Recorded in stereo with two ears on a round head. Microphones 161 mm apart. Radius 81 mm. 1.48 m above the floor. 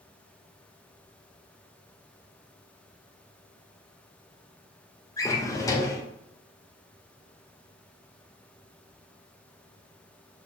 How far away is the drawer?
About 0.6 m.